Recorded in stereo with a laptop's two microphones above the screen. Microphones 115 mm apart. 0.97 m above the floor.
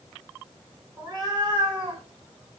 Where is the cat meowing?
30° right (ahead or behind), 0.9 m; by 2.0 s 50° right (ahead or behind), 1.3 m.